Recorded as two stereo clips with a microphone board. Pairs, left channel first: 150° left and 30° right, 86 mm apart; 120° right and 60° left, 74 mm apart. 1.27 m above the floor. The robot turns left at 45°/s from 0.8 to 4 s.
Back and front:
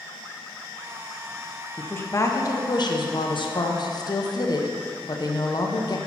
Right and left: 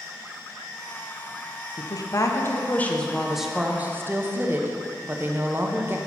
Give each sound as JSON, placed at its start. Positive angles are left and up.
{"t": 1.8, "sound": "a woman speaking", "azimuth_deg": -140, "distance_m": 0.7}